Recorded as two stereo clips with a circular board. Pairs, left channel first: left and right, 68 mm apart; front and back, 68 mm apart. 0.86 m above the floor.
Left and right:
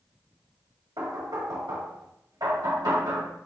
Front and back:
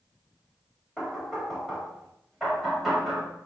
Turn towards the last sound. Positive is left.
turn(degrees=-90)